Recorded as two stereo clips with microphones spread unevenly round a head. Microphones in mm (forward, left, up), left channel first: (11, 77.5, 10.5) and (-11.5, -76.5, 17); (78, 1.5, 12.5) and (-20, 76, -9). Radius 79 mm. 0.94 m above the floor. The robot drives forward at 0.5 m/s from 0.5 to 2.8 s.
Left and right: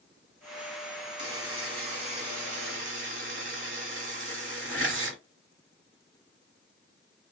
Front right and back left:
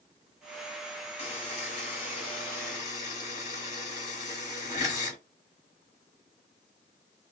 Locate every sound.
1.2 s a buzzer: 40° right, 1.4 m; by 5.2 s 85° right, 1.1 m